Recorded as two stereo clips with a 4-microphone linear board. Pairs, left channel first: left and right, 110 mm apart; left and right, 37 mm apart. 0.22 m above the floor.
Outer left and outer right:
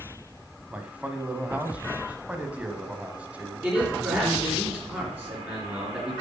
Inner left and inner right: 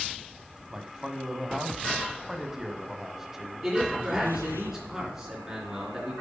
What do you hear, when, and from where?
0.7 s a man speaking: 10° right (ahead or behind), 1.1 m
3.6 s a man speaking: 15° right (ahead or behind), 3.5 m